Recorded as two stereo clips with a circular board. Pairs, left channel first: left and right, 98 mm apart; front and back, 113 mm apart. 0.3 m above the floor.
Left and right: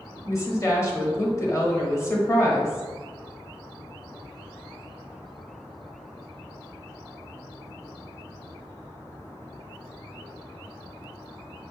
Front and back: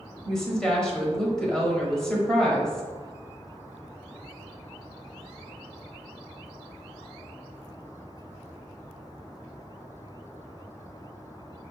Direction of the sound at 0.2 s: 80° left.